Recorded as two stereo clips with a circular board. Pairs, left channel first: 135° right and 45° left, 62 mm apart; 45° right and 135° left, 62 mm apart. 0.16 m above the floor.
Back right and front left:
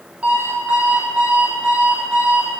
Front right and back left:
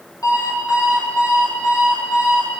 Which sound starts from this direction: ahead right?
An alarm clock, at 0.2 s.